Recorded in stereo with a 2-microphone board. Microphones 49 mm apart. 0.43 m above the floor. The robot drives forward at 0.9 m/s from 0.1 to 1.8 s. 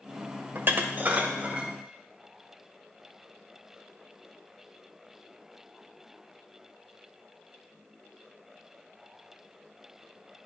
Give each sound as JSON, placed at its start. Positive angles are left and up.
{"t": 0.6, "sound": "dishes clattering", "side_deg": -50, "distance_m": 0.9}